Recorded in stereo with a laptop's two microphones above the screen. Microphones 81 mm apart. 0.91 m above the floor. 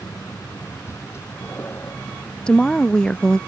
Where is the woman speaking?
10° left (ahead or behind).